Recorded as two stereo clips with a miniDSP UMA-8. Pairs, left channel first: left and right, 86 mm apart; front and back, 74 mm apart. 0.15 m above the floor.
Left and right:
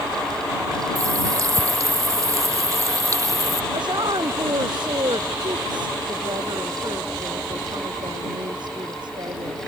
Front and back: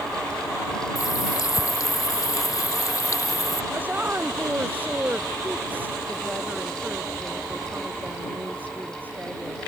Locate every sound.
0.9 s a running tap: 40° right
3.7 s a woman speaking: 115° right